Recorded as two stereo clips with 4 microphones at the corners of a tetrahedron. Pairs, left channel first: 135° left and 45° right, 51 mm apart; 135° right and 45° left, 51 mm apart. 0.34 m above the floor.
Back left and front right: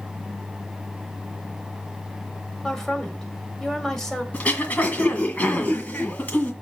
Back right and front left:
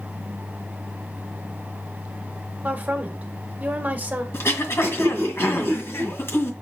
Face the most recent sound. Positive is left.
turn(degrees=-165)